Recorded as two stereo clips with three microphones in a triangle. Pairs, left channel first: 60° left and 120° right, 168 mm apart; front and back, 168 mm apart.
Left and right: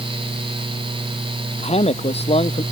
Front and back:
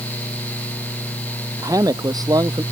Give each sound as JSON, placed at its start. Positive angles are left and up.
{"t": 1.6, "sound": "a man speaking", "azimuth_deg": 110}